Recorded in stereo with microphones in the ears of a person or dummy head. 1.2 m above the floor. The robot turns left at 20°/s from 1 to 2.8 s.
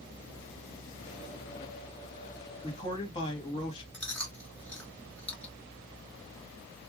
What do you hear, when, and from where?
2.6 s a man speaking: 30° left (ahead or behind), 2.5 m; by 3.8 s 25° left (ahead or behind), 2.5 m
3.9 s chewing: 5° left (ahead or behind), 2.5 m